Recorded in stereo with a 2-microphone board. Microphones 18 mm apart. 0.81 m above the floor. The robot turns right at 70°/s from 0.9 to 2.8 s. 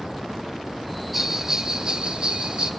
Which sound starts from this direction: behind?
A bell, at 1.1 s.